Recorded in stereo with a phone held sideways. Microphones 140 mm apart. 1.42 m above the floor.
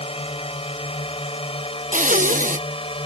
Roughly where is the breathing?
Right.